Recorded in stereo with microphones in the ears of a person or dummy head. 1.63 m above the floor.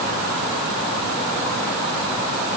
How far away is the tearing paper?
I don't hear tearing paper.